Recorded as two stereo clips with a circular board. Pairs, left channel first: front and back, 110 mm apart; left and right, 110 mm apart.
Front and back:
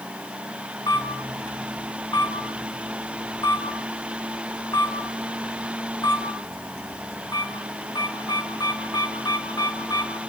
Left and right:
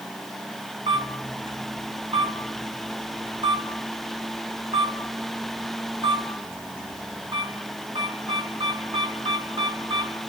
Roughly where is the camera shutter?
Ahead right.